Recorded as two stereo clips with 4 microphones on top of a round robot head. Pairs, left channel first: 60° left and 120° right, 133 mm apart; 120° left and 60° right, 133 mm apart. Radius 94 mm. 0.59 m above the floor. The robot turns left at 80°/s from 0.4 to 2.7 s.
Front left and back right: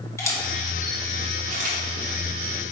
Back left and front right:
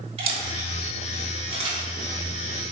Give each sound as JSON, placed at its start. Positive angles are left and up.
{"t": 0.2, "sound": "a camera shutter", "azimuth_deg": -10, "distance_m": 1.2}